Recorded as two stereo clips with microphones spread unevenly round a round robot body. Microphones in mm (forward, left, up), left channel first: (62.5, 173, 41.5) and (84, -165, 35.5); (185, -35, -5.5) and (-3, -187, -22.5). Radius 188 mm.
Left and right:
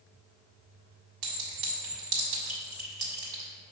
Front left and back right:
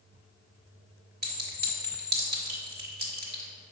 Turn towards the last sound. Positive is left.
turn(degrees=-90)